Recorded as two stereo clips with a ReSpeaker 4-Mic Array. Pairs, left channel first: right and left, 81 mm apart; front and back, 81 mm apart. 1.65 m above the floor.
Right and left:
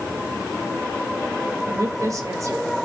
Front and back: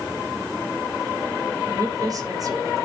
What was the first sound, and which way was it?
A woman speaking, 140° left.